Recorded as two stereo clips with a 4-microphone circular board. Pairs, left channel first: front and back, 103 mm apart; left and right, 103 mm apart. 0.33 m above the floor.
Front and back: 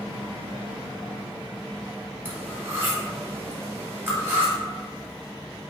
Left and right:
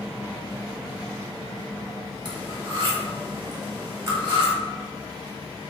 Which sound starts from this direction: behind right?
Cutlery clinking, at 2.2 s.